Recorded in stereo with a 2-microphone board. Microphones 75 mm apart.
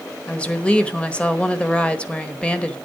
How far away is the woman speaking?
About 1.2 m.